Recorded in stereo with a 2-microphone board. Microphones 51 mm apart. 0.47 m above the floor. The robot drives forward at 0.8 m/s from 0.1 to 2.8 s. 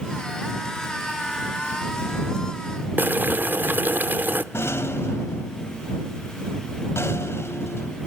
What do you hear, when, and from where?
3.0 s boiling: 40° right (ahead or behind), 0.6 m
4.5 s a rattle: 55° left (ahead or behind), 0.7 m